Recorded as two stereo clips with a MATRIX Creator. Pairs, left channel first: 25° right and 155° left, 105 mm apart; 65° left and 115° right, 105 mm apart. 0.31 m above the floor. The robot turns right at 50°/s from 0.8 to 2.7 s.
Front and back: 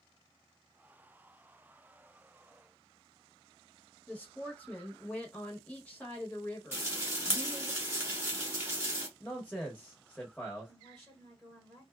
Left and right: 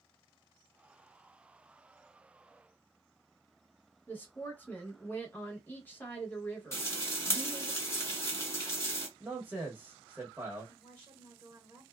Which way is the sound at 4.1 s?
35° left.